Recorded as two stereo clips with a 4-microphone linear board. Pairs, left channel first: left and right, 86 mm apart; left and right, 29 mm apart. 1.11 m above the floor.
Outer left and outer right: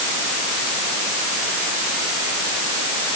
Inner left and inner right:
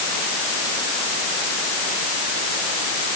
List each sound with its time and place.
Only background noise.